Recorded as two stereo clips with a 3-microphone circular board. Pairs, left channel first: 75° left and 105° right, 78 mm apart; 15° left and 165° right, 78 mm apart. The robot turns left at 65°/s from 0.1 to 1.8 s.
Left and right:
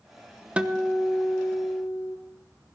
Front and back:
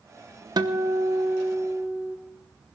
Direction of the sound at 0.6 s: 175° right.